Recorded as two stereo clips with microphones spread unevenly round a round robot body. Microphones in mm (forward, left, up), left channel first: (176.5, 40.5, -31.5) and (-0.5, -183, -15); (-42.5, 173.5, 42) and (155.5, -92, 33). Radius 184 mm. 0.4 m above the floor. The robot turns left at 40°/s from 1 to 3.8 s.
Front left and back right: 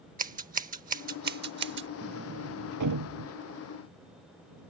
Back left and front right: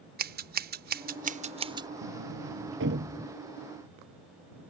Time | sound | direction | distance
0.2 | scissors | 85° right | ?
2.0 | a sliding door | 80° right | ?